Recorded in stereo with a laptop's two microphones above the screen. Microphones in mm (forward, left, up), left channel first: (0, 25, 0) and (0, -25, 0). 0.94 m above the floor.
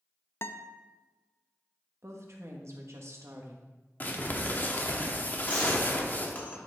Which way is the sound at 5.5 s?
35° left (ahead or behind).